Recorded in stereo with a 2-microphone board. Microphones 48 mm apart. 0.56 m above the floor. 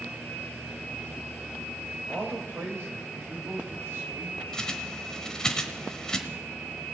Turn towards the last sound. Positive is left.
turn(degrees=15)  # may be behind; listen again after turning